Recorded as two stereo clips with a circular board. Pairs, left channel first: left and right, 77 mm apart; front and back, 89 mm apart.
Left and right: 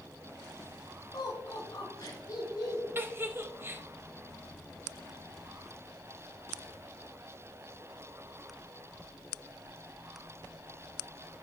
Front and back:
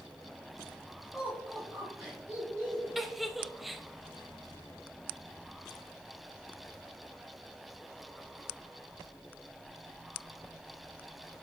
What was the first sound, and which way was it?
Laughter, 105° left.